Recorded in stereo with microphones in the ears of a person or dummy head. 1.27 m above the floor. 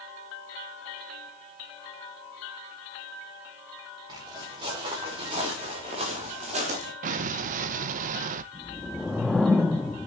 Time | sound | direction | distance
4.1 | footsteps | 20° right (ahead or behind) | 7.5 m
7.0 | an explosion | 40° right (ahead or behind) | 0.5 m
8.5 | a whoosh | 5° left (ahead or behind) | 0.9 m